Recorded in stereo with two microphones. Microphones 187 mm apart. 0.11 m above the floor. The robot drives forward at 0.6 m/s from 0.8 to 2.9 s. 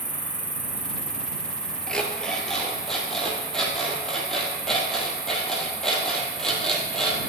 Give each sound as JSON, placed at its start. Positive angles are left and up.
{"t": 0.0, "sound": "an insect", "side_deg": -5, "distance_m": 1.4}
{"t": 1.9, "sound": "an alarm clock", "side_deg": 5, "distance_m": 0.8}